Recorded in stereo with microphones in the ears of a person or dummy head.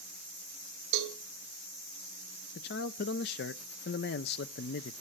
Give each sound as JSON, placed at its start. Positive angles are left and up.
{"t": 0.9, "sound": "a cowbell", "side_deg": -65, "distance_m": 2.0}
{"t": 2.5, "sound": "a man speaking", "side_deg": 50, "distance_m": 0.5}